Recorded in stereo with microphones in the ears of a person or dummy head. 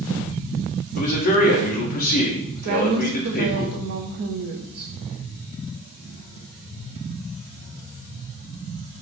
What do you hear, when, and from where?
1.0 s a man speaking: 45° left (ahead or behind), 0.9 m
2.6 s a woman speaking: 50° right (ahead or behind), 0.5 m